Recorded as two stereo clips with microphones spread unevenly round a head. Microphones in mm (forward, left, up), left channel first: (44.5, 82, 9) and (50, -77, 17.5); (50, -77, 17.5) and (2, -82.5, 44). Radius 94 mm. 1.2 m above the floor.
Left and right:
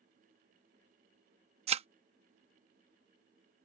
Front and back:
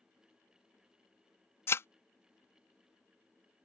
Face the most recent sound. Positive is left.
turn(degrees=-45)